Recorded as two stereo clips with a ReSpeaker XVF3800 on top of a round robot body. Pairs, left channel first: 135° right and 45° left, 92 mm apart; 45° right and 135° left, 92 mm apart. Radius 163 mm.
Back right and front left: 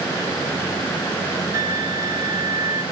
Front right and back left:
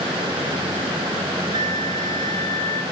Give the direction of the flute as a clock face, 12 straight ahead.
9 o'clock.